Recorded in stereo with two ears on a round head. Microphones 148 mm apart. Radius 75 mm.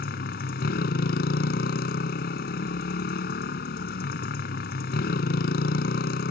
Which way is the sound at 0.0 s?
55° left (ahead or behind).